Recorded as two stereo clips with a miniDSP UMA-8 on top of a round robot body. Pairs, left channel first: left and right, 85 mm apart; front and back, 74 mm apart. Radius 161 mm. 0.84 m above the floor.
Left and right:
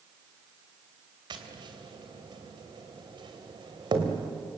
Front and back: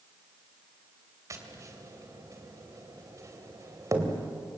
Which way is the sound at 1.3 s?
130° right.